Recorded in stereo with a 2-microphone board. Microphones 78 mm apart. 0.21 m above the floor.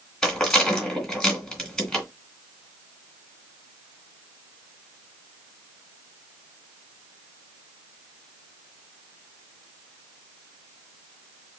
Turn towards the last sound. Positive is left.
turn(degrees=5)  # may be behind; listen again after turning